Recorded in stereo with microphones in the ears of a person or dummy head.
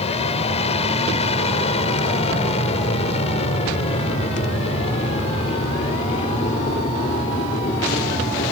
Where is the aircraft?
40° left (ahead or behind); by 8.5 s 35° left (ahead or behind).